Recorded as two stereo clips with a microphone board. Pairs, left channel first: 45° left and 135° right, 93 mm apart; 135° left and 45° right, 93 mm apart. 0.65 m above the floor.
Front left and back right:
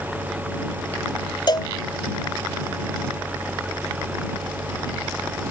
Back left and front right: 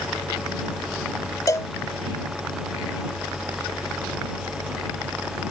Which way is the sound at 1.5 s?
80° left.